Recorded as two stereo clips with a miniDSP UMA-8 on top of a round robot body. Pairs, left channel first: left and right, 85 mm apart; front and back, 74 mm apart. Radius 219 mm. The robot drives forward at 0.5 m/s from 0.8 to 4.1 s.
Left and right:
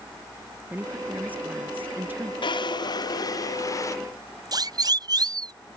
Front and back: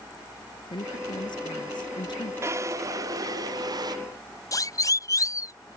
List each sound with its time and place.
0.7 s a woman speaking: 15° right; by 2.3 s 20° right
2.4 s a drawer: 125° left; by 4.0 s 145° left
4.5 s a siren: 45° right